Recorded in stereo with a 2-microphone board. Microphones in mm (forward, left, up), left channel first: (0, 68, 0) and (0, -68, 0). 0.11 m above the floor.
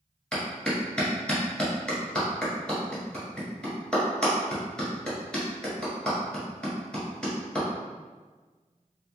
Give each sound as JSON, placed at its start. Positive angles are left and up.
{"t": 0.3, "sound": "a clap", "side_deg": 5, "distance_m": 1.3}